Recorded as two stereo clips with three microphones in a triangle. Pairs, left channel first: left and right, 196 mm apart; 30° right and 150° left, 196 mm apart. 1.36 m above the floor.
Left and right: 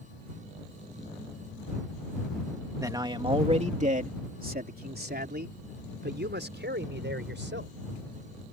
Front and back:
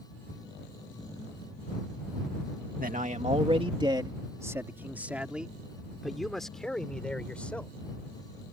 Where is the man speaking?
165° right; by 7.8 s 115° right.